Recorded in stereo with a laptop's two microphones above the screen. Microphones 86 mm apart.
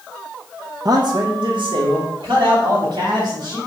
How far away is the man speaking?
About 0.5 m.